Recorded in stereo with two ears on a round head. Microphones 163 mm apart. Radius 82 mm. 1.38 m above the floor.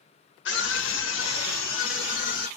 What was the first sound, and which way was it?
A scream, 70° left (ahead or behind).